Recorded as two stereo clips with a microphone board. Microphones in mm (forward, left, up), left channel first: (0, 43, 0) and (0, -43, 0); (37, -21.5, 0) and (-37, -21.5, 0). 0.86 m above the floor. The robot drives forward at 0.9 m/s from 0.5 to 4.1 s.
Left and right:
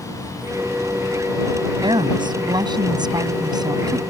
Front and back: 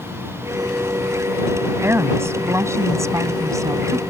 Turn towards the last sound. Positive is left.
turn(degrees=-135)